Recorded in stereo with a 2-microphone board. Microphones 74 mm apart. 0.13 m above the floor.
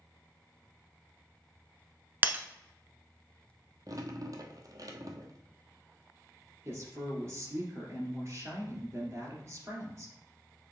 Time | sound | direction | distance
2.2 | breaking glass | 25° right (ahead or behind) | 0.7 m
3.9 | dripping | 55° right (ahead or behind) | 1.0 m
6.7 | a woman speaking | 40° right (ahead or behind) | 2.5 m